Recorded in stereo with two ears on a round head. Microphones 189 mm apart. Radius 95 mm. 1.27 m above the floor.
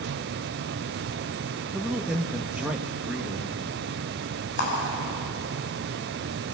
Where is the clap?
55° left (ahead or behind), 9 m.